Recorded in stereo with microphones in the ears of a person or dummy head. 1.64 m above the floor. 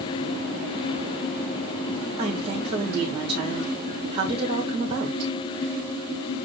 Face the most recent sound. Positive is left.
turn(degrees=-25)  # may be behind; listen again after turning